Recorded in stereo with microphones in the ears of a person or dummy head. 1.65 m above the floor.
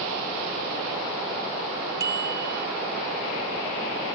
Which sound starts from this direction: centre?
A bicycle bell, at 2.0 s.